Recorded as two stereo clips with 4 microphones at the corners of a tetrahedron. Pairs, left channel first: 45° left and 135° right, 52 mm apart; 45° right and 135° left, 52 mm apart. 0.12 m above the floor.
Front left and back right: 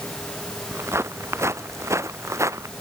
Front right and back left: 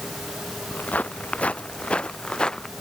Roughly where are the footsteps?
Right.